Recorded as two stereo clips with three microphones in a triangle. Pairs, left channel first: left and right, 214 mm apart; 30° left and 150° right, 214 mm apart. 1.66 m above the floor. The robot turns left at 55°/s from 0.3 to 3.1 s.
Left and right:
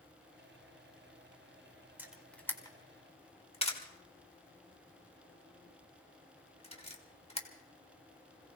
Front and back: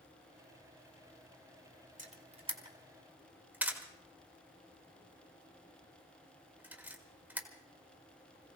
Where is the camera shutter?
165° right, 1.6 m; by 7.5 s 130° left, 1.6 m.